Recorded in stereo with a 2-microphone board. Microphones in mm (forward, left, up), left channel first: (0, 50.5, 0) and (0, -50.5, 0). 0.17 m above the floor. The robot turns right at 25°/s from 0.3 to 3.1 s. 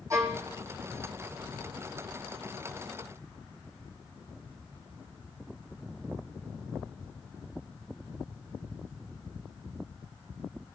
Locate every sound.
0.1 s a violin: 30° right (ahead or behind), 1.3 m; by 0.5 s 25° right (ahead or behind), 1.3 m